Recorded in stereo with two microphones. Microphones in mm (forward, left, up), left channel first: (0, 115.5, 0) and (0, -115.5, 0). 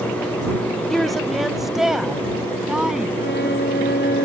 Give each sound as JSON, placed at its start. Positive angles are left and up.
{"t": 0.9, "sound": "a woman speaking", "side_deg": 0}
{"t": 3.2, "sound": "a violin", "side_deg": 45}